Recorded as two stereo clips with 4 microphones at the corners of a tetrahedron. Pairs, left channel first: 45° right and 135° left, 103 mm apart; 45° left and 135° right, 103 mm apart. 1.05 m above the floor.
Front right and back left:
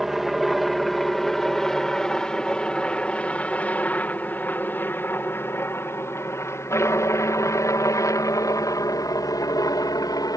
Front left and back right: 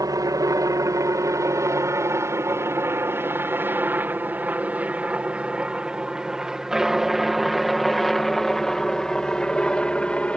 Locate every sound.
0.0 s a helicopter: 140° right; by 10.4 s 30° right